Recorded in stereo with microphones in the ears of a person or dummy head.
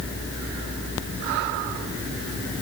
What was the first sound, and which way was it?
Only background noise.